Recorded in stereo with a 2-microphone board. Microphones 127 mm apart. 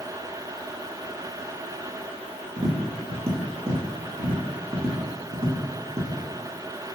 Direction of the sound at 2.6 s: 50° right (ahead or behind).